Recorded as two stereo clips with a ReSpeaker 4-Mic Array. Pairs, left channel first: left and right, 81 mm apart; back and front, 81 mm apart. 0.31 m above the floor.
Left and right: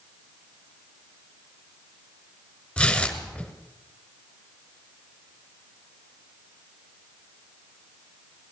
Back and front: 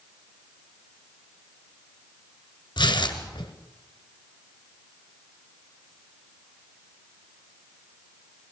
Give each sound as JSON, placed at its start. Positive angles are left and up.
{"t": 2.8, "sound": "tearing paper", "azimuth_deg": 170, "distance_m": 1.5}